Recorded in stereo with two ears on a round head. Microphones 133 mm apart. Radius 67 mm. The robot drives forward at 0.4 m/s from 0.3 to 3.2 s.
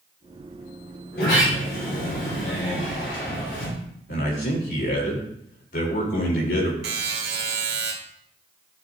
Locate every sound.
1.1 s a sliding door: 75° left (ahead or behind), 4.5 m; by 3.7 s 65° left (ahead or behind), 4.5 m
4.1 s a man speaking: 60° left (ahead or behind), 3 m
6.8 s a buzzer: 80° right, 1.9 m